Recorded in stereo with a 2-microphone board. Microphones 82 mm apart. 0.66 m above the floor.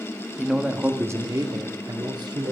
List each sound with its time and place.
0.4 s a man speaking: centre (ahead or behind), 0.9 m; by 2.5 s 60° right (ahead or behind), 1.9 m